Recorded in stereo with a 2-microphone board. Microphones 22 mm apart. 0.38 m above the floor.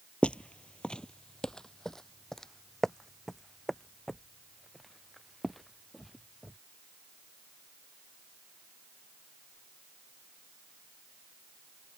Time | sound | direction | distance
0.2 | footsteps | 60° left (ahead or behind) | ?